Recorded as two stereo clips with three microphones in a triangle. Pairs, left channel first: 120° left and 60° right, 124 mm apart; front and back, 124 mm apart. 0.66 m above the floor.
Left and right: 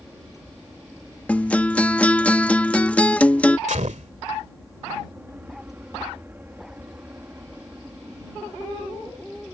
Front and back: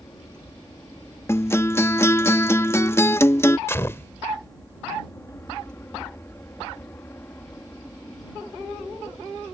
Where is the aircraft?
Straight ahead; by 9.5 s 30° right.